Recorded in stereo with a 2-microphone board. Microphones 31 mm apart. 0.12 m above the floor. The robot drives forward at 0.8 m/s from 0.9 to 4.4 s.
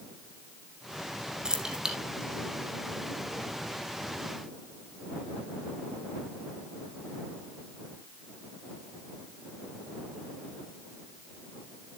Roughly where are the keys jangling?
Right.